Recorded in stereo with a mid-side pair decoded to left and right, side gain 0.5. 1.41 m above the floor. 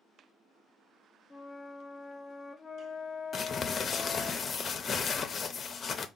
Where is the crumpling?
35° left, 0.6 m.